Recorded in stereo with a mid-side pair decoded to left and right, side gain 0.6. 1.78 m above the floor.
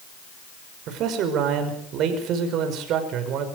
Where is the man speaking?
60° right, 5.5 m.